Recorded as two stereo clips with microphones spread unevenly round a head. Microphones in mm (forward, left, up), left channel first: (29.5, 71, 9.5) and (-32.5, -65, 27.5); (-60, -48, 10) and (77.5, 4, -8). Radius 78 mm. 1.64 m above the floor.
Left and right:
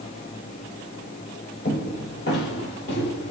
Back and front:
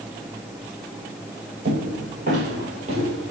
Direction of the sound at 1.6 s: 45° left.